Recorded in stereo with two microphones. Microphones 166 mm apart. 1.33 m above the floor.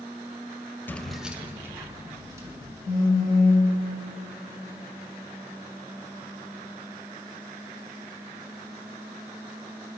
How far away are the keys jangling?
About 0.6 m.